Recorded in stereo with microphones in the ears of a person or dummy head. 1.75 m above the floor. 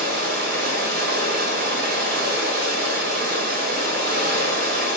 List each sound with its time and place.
0.0 s running water: 70° right (ahead or behind), 1.6 m